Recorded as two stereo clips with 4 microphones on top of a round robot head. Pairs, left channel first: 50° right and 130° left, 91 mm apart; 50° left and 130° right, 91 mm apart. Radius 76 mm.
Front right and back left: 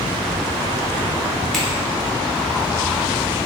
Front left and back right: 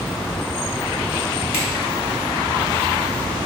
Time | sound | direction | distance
1.5 | a finger snap | 35° left | 0.9 m